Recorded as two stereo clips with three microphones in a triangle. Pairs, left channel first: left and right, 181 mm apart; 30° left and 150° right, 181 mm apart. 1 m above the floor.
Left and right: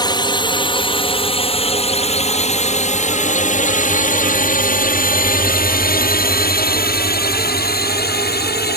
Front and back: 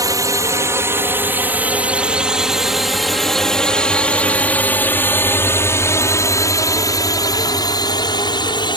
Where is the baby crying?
No baby crying in this recording.